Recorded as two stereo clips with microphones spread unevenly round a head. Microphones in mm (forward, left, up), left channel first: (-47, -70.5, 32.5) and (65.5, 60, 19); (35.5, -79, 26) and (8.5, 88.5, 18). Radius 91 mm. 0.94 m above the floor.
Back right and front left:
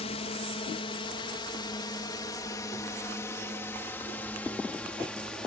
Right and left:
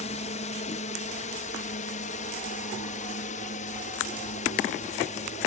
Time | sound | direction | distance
0.0 | a drone | 95° right | ?